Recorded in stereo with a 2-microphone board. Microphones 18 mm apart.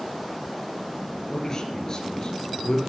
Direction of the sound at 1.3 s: 30° left (ahead or behind).